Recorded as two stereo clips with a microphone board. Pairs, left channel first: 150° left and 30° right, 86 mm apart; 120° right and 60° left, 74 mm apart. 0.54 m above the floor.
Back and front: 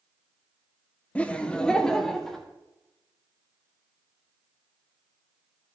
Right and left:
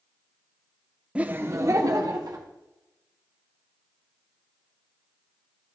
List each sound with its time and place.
1.1 s laughter: 105° left, 0.7 m; by 2.5 s 65° left, 1.5 m